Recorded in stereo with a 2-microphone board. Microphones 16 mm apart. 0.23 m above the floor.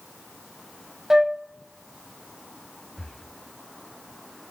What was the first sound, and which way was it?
A flute, 30° right (ahead or behind).